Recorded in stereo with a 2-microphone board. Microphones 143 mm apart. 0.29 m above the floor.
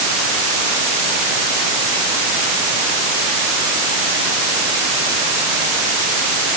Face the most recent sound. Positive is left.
No sound to turn to.